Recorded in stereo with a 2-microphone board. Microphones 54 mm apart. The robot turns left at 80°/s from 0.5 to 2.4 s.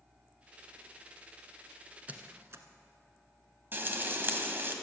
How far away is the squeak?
About 1.2 m.